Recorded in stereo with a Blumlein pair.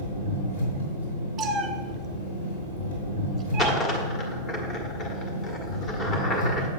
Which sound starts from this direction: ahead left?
An engine running, at 0.0 s.